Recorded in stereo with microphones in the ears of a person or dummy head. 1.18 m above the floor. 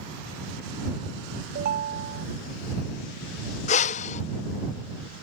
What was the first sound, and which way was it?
A ringtone, 55° right (ahead or behind).